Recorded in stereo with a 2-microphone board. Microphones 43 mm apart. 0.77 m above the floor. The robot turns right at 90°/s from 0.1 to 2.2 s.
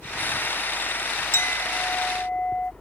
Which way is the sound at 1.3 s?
80° left.